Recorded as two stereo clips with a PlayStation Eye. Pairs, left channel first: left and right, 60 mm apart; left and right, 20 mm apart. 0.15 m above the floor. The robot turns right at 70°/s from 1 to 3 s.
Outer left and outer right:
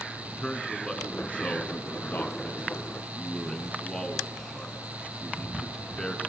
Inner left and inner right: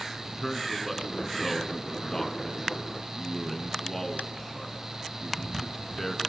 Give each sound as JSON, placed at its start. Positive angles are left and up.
{"t": 0.2, "sound": "a man speaking", "side_deg": 15, "distance_m": 1.5}